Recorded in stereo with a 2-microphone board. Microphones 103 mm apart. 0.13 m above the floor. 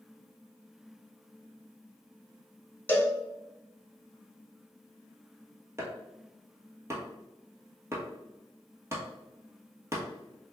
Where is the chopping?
25° right (ahead or behind), 1.1 m.